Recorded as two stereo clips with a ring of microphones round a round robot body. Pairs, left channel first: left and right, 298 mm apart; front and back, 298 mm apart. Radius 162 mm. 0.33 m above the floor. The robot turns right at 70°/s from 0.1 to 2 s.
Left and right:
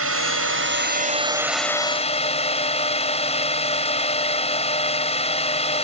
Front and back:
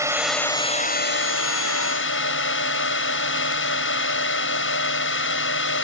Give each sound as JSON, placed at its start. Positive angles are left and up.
{"t": 0.0, "sound": "a drone", "azimuth_deg": -105}